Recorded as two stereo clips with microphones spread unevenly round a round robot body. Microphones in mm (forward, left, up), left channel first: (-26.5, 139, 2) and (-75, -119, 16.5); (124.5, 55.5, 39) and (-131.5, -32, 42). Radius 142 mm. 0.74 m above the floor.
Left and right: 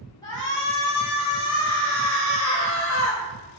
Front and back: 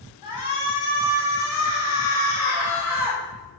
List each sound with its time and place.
0.2 s a shout: straight ahead, 6 m; by 3.2 s 10° left, 5 m